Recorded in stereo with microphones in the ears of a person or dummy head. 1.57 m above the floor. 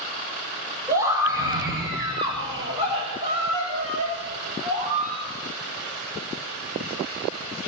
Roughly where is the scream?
Centre.